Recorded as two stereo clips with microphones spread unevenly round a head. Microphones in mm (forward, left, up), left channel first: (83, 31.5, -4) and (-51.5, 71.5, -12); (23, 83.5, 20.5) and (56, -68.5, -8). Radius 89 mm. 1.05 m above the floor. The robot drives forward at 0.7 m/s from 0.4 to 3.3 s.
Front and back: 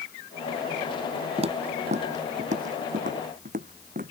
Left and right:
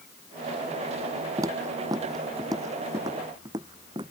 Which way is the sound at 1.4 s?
155° right.